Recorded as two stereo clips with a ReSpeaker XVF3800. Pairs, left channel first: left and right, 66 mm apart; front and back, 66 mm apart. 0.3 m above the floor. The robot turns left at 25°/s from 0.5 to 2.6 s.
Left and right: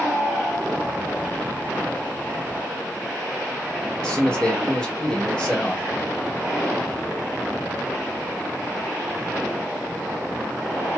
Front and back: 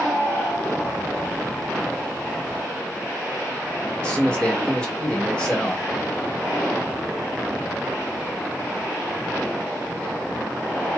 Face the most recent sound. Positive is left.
turn(degrees=45)